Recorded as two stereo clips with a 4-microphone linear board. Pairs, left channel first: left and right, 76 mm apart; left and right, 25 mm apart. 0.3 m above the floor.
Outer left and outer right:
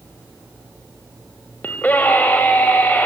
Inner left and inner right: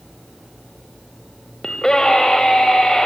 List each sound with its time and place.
1.6 s a scream: 20° left (ahead or behind), 1.5 m